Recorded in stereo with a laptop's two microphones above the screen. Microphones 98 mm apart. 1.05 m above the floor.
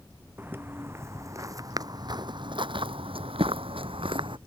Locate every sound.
0.4 s footsteps: 20° right (ahead or behind); by 4.4 s 60° right (ahead or behind)